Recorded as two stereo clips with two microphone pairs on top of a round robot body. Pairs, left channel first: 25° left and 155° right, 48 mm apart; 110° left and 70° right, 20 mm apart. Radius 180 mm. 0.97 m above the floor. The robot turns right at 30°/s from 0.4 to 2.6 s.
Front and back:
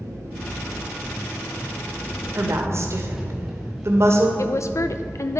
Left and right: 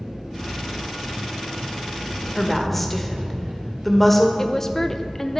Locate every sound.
0.0 s an engine running: 135° right, 1.2 m; by 5.4 s 70° right, 1.2 m
2.4 s a woman speaking: 170° left, 1.8 m; by 4.3 s straight behind, 1.8 m
4.4 s a woman speaking: 40° left, 0.5 m